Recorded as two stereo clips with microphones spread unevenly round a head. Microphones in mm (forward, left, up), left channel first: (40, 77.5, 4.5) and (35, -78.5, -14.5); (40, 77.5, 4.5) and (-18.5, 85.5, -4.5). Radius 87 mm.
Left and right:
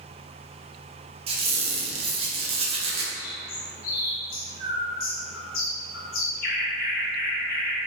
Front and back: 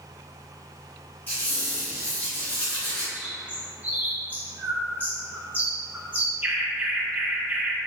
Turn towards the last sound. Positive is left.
turn(degrees=105)